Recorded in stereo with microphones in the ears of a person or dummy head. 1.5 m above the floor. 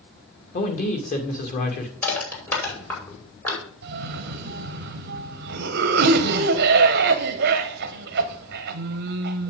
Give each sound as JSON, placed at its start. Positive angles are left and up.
{"t": 0.5, "sound": "a man speaking", "side_deg": 55, "distance_m": 2.5}
{"t": 2.0, "sound": "crushing", "side_deg": 25, "distance_m": 5.5}
{"t": 3.8, "sound": "a cough", "side_deg": -60, "distance_m": 0.7}